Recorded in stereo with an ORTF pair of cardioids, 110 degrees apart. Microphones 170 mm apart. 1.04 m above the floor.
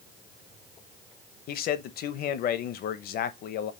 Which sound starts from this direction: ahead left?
A man speaking, at 1.5 s.